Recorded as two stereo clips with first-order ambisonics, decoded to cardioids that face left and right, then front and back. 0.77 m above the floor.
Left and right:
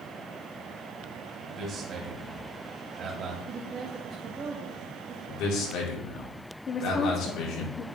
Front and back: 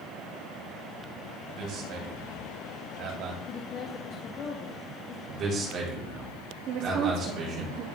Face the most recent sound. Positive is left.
turn(degrees=150)